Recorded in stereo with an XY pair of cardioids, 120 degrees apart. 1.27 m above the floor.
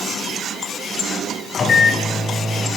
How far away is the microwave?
About 0.9 m.